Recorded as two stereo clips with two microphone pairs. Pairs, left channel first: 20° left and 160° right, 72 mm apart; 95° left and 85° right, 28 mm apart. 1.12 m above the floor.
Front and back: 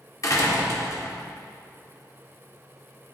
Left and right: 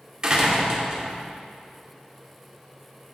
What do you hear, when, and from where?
0.2 s a door slam: 20° right, 1.7 m